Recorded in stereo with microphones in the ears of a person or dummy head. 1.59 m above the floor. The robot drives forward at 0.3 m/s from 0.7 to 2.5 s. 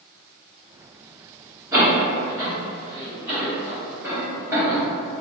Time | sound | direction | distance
1.7 | a door slam | 10° right (ahead or behind) | 1.7 m